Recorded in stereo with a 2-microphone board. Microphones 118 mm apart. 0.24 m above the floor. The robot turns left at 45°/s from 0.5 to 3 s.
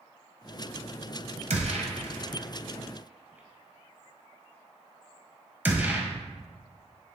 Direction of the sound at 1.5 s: 80° right.